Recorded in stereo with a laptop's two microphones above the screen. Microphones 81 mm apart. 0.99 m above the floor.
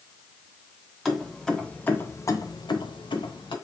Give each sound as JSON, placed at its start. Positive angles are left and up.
{"t": 1.1, "sound": "keys jangling", "side_deg": 0, "distance_m": 1.0}